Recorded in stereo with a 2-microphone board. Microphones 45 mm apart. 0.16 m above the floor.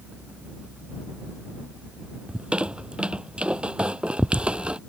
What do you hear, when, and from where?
2.3 s a squeak: 25° right (ahead or behind)